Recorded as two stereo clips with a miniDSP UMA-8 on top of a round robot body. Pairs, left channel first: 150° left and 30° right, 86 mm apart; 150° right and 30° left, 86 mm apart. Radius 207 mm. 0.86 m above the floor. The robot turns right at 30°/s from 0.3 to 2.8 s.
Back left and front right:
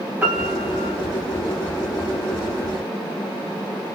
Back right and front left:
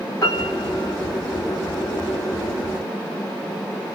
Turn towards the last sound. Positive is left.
turn(degrees=-25)